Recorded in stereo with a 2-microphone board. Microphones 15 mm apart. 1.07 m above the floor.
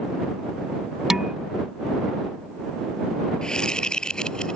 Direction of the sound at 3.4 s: 60° left (ahead or behind).